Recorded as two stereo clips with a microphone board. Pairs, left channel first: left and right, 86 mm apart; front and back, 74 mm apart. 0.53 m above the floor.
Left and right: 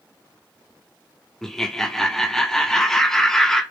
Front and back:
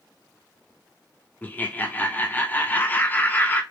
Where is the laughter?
10° left, 0.7 m.